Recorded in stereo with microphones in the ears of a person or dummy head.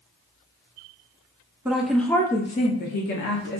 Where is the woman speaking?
10° right (ahead or behind), 0.6 m; by 3.6 s 60° left (ahead or behind), 0.8 m.